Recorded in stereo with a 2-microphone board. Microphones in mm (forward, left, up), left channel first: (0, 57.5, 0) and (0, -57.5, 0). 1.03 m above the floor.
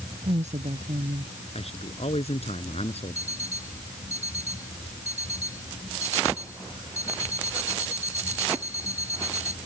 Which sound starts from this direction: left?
A man speaking, at 1.6 s.